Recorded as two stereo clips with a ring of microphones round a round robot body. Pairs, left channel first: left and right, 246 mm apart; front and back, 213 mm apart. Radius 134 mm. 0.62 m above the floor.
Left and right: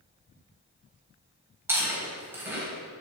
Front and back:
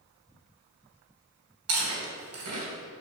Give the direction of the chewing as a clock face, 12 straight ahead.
6 o'clock.